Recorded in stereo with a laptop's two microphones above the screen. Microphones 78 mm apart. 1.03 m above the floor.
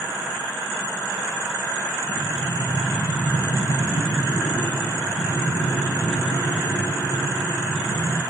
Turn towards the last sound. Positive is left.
turn(degrees=75)  # may be behind; listen again after turning